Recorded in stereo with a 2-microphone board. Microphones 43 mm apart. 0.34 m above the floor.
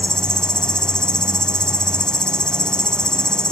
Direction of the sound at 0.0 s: 20° left (ahead or behind).